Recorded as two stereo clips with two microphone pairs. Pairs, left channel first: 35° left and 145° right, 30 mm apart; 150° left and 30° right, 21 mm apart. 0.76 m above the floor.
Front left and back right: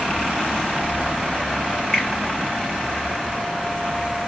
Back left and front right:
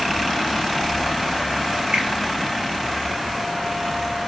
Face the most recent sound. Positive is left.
turn(degrees=-35)